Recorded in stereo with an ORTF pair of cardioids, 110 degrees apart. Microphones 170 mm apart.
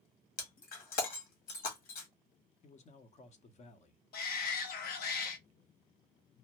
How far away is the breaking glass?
About 1.4 m.